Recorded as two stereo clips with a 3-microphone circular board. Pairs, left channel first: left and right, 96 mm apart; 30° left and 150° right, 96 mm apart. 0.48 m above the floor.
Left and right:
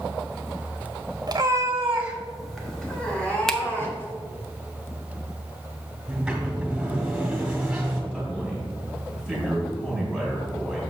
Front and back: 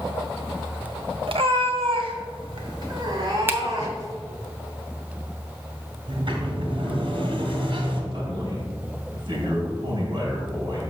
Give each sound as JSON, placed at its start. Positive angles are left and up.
{"t": 1.3, "sound": "a cat meowing", "azimuth_deg": -135, "distance_m": 1.0}
{"t": 3.5, "sound": "a finger snap", "azimuth_deg": 170, "distance_m": 0.6}
{"t": 6.1, "sound": "a sliding door", "azimuth_deg": -170, "distance_m": 1.8}
{"t": 8.1, "sound": "a man speaking", "azimuth_deg": 175, "distance_m": 2.5}